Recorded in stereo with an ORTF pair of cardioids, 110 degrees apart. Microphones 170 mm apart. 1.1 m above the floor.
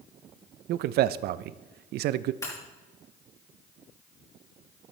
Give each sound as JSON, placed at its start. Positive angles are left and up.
{"t": 0.7, "sound": "a man speaking", "azimuth_deg": -70, "distance_m": 0.6}
{"t": 2.4, "sound": "breaking glass", "azimuth_deg": 20, "distance_m": 5.5}